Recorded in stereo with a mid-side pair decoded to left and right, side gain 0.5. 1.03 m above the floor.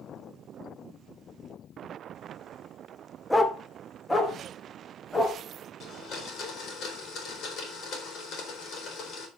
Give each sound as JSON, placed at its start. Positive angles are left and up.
{"t": 3.3, "sound": "a dog barking", "azimuth_deg": 15, "distance_m": 1.3}
{"t": 5.8, "sound": "a blender", "azimuth_deg": 60, "distance_m": 3.5}